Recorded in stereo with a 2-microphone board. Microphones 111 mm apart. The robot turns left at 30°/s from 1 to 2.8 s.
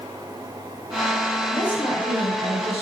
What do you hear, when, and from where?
1.5 s a woman speaking: 130° left, 3.5 m; by 2.8 s 90° left, 3.5 m